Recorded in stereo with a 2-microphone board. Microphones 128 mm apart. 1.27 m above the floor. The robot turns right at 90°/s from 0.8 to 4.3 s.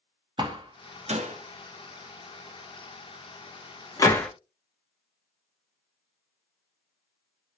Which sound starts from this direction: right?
A door slam, at 0.4 s.